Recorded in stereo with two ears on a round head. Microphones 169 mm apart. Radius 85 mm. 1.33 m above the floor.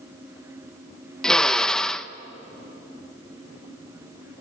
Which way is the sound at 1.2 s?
5° left (ahead or behind).